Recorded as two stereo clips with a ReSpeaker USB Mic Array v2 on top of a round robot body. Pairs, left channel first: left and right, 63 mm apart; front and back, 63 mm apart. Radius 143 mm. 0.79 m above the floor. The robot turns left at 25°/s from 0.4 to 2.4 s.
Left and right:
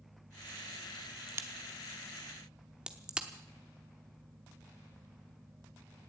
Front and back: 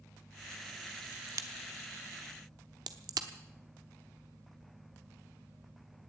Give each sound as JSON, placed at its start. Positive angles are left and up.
{"t": 1.3, "sound": "a crack", "azimuth_deg": -140, "distance_m": 0.8}